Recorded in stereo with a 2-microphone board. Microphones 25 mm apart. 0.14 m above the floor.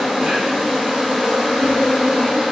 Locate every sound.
0.0 s an insect: 60° right (ahead or behind), 1.8 m